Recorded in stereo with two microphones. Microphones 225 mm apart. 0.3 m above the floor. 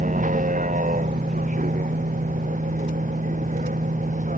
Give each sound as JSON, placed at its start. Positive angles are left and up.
{"t": 0.0, "sound": "a vehicle", "side_deg": -35}